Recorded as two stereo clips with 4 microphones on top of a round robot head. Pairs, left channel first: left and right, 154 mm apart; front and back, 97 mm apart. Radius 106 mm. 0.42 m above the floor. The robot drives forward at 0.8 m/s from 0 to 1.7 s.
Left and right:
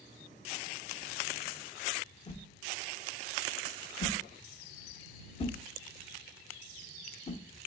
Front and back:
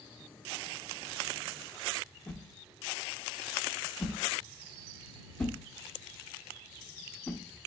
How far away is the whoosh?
About 0.9 m.